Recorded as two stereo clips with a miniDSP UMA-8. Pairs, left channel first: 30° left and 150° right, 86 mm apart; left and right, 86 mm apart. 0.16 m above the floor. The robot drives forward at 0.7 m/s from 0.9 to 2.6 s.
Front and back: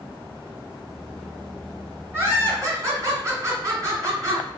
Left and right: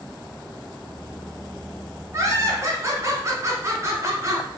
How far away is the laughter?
About 1.5 m.